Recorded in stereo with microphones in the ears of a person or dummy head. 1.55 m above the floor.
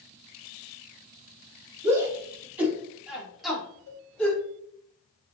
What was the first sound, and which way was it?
A shout, 15° right (ahead or behind).